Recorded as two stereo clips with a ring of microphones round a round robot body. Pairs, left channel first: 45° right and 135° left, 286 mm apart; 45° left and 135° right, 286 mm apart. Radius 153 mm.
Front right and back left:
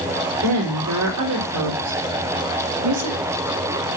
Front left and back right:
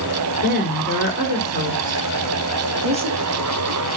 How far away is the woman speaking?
About 4 m.